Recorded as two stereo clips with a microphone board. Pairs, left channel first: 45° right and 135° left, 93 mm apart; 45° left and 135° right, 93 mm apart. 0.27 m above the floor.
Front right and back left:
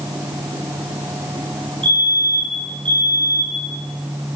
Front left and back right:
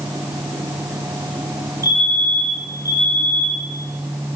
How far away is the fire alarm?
About 7 m.